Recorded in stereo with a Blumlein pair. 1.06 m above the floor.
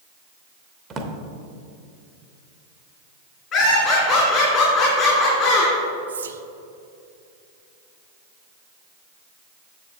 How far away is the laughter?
About 2.5 m.